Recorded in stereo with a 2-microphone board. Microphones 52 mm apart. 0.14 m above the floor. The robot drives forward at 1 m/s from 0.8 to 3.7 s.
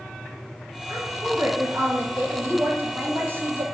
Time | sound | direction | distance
0.9 | a woman speaking | 55° right (ahead or behind) | 2 m